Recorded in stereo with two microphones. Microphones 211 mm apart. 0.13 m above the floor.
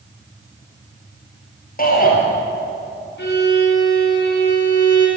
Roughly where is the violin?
Left.